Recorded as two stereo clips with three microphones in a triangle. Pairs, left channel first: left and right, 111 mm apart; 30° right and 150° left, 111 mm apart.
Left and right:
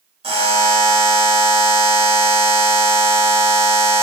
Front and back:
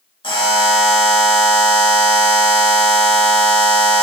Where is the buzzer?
65° right, 1.3 m.